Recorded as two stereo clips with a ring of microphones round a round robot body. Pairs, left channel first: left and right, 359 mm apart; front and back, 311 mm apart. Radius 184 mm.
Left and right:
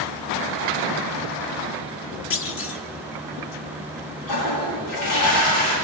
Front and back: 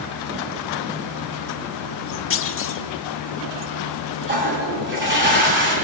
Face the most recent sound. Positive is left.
turn(degrees=125)